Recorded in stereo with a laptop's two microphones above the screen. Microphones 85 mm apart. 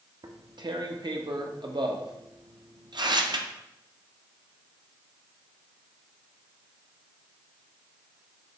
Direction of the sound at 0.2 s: 55° right (ahead or behind).